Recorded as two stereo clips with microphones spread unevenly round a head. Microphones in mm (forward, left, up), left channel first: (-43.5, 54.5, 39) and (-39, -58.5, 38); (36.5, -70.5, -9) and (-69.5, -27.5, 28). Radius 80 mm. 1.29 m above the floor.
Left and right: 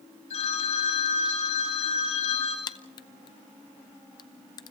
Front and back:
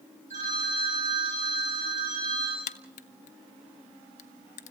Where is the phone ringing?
115° left, 5.5 m.